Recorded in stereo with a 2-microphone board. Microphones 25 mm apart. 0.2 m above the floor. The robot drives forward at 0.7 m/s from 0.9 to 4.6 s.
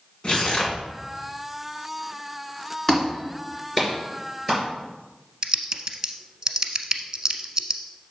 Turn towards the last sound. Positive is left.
turn(degrees=-25)  # may be behind; listen again after turning